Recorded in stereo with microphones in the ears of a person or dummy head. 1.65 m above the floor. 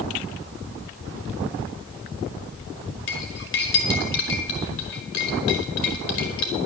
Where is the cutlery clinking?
55° left (ahead or behind), 1.5 m.